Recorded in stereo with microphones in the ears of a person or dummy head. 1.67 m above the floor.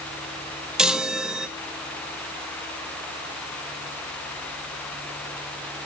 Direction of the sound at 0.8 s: Centre (ahead or behind).